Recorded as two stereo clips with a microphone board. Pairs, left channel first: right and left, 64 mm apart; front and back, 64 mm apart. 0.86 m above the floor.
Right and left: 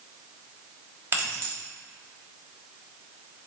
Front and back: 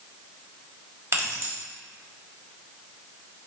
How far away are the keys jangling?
About 1.2 m.